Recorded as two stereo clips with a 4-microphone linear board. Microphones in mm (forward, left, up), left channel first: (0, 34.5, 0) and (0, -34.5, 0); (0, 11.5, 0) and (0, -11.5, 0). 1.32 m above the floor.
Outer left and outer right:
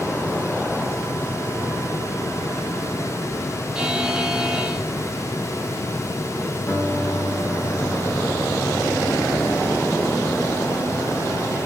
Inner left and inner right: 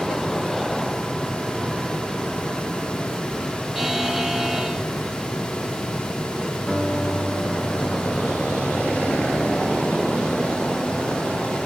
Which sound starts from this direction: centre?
A buzzer, at 3.8 s.